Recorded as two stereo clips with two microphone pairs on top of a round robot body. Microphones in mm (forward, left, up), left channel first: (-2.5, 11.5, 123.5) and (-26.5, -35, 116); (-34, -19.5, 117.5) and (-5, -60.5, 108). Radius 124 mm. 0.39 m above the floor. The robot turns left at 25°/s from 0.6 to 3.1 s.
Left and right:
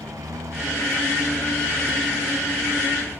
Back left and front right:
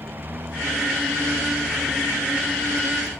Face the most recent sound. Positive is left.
turn(degrees=-175)